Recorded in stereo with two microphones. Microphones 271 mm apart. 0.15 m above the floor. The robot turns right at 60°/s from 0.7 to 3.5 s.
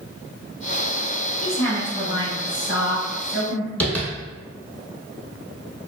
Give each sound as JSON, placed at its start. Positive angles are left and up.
{"t": 1.4, "sound": "a woman speaking", "azimuth_deg": -5, "distance_m": 1.5}
{"t": 3.8, "sound": "tapping", "side_deg": 5, "distance_m": 0.8}